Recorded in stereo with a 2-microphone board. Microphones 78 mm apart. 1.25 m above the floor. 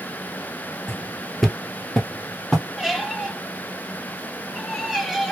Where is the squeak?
5° right (ahead or behind), 1.5 m.